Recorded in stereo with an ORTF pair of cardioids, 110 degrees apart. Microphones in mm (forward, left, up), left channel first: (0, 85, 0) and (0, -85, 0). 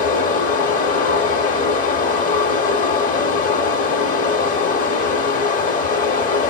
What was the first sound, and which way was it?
Running water, 55° left.